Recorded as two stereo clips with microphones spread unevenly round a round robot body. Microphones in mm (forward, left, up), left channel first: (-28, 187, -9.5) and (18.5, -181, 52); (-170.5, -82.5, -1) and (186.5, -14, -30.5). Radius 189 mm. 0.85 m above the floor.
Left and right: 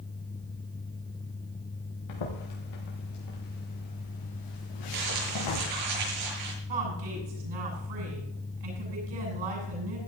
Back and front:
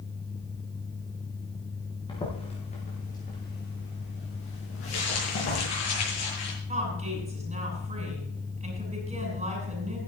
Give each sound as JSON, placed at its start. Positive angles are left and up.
{"t": 2.1, "sound": "footsteps", "azimuth_deg": 115, "distance_m": 6.0}
{"t": 4.9, "sound": "crumpling", "azimuth_deg": -120, "distance_m": 7.5}
{"t": 6.7, "sound": "a woman speaking", "azimuth_deg": -60, "distance_m": 8.5}